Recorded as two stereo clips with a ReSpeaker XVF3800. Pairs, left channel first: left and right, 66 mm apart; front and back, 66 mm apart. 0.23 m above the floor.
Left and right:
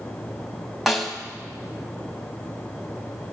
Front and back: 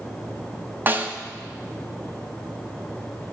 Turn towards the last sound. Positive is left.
turn(degrees=180)